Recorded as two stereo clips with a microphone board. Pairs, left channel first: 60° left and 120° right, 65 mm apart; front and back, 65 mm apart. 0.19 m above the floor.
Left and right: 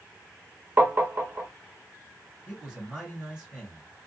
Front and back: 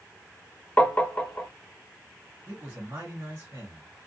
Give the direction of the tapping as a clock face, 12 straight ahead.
2 o'clock.